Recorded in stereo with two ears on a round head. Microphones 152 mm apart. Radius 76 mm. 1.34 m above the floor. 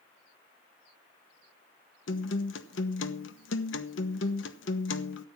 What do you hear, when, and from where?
2.1 s a guitar: 80° left, 1.2 m